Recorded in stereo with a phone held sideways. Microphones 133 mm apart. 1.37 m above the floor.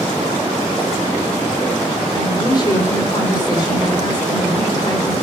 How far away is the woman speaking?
About 4 m.